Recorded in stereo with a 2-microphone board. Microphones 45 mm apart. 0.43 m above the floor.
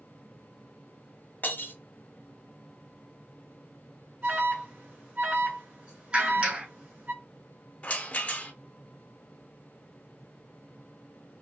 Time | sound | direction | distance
1.4 | breaking glass | 45° left (ahead or behind) | 0.8 m
4.2 | an alarm | 30° right (ahead or behind) | 2 m
6.1 | a clap | 30° right (ahead or behind) | 1.6 m
7.8 | a rattle | 35° left (ahead or behind) | 0.5 m